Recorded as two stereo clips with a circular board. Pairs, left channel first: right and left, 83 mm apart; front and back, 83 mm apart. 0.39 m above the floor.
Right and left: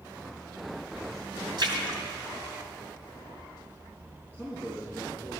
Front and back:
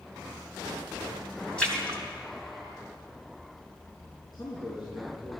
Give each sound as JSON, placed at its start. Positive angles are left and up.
{"t": 1.6, "sound": "a splash", "azimuth_deg": 75, "distance_m": 3.0}
{"t": 4.3, "sound": "a man speaking", "azimuth_deg": 25, "distance_m": 4.5}